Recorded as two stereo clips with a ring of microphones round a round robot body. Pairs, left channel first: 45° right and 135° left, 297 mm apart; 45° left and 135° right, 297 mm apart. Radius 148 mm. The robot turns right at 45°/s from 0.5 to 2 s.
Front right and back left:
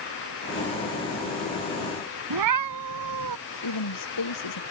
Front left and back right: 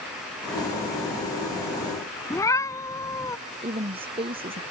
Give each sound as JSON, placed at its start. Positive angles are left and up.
{"t": 2.3, "sound": "a cat meowing", "azimuth_deg": 125}
{"t": 3.6, "sound": "a woman speaking", "azimuth_deg": -65}